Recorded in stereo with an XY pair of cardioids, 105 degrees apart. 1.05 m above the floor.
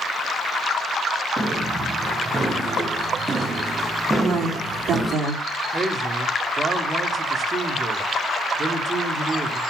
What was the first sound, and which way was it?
Footsteps, 20° right.